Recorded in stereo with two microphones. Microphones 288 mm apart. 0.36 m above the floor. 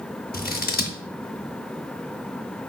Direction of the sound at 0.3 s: 30° left (ahead or behind).